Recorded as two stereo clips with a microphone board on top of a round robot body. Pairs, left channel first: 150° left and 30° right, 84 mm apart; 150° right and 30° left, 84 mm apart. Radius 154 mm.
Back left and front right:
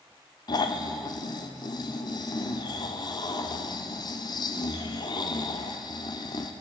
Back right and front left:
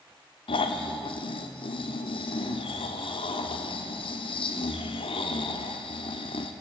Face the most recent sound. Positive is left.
turn(degrees=-170)